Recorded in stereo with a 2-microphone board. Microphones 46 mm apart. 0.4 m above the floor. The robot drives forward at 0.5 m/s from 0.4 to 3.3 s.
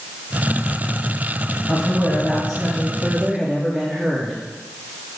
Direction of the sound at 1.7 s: 15° right (ahead or behind).